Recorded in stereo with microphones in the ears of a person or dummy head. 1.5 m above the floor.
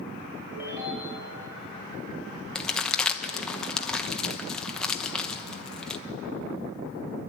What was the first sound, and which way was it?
A ringtone, 10° right (ahead or behind).